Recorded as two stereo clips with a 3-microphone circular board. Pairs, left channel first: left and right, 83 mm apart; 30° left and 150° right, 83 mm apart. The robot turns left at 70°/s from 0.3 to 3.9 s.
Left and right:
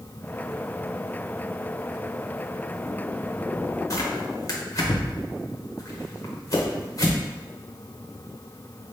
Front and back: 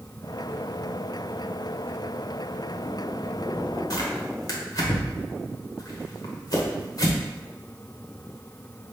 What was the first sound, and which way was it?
Tearing paper, 55° left.